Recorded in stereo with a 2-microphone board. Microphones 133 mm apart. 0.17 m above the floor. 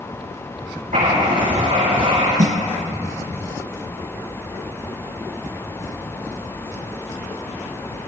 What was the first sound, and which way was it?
Writing, 80° right.